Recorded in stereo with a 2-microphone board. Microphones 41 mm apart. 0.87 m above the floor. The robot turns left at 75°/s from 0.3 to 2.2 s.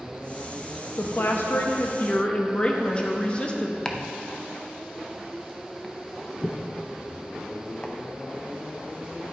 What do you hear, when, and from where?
1.0 s a woman speaking: 120° left, 0.7 m; by 3.8 s 30° left, 0.7 m
3.9 s chopping: 20° left (ahead or behind), 0.6 m